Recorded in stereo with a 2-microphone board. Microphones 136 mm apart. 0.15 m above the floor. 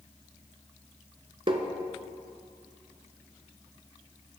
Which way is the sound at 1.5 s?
40° right (ahead or behind).